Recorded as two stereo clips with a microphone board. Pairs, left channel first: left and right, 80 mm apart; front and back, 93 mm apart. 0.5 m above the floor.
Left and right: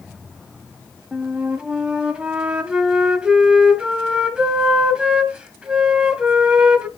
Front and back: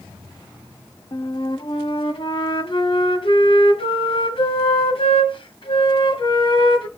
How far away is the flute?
About 1.5 m.